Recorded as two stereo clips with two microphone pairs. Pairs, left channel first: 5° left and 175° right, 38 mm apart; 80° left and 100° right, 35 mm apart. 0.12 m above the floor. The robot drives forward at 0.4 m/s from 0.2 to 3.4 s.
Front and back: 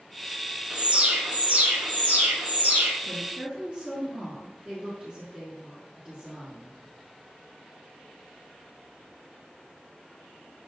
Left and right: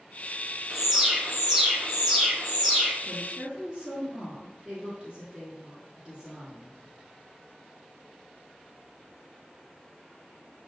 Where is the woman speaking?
135° right, 1.3 m; by 6.8 s 140° right, 1.3 m.